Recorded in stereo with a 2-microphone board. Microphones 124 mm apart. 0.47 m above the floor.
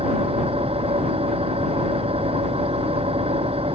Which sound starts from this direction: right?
An engine running, at 0.0 s.